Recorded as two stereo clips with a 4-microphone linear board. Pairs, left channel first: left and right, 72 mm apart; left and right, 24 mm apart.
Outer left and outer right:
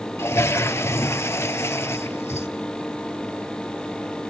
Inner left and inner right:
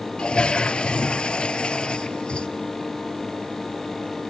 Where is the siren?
No siren in this recording.